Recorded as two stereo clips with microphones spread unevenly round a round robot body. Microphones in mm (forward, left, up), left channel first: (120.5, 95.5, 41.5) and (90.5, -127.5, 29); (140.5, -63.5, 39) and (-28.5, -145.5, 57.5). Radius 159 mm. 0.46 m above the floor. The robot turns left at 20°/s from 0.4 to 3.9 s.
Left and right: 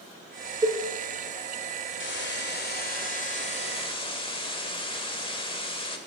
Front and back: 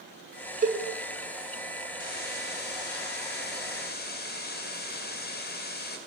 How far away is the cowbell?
About 1.5 m.